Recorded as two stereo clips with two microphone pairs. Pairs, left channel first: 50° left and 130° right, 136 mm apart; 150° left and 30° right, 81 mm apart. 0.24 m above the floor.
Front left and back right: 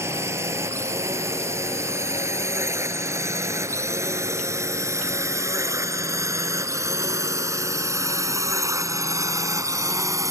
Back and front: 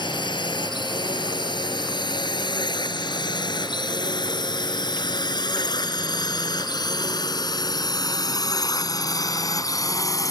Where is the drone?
160° left; by 10.3 s 170° left.